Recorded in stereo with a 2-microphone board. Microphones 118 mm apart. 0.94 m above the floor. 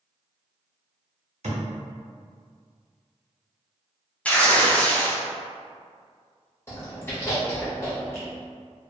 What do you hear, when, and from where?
1.4 s a thud: 65° right (ahead or behind), 1.0 m
4.2 s tearing paper: 10° left (ahead or behind), 0.5 m
6.7 s chewing: 20° left (ahead or behind), 1.2 m